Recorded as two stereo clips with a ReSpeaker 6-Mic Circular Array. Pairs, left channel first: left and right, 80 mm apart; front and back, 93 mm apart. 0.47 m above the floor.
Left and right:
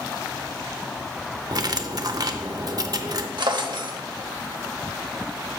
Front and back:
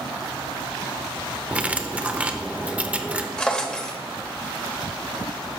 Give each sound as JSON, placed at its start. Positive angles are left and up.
{"t": 1.5, "sound": "cutlery clinking", "azimuth_deg": -110, "distance_m": 0.6}
{"t": 3.4, "sound": "a drawer", "azimuth_deg": -80, "distance_m": 0.8}